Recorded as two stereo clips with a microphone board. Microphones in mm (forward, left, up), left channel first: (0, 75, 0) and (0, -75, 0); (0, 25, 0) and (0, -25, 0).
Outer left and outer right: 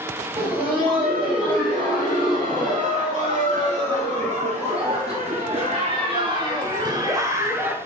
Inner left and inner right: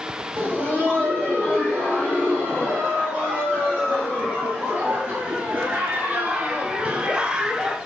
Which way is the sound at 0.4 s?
40° right (ahead or behind).